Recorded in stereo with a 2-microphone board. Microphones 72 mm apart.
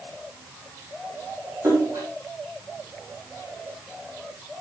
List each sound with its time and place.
1.6 s a splash: 45° right (ahead or behind), 5.5 m